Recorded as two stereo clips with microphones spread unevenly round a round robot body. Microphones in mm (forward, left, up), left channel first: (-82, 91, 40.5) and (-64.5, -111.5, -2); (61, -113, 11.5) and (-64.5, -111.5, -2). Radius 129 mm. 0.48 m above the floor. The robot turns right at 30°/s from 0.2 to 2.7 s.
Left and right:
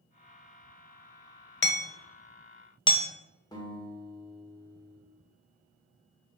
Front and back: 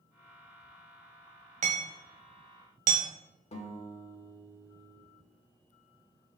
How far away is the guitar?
About 1.8 m.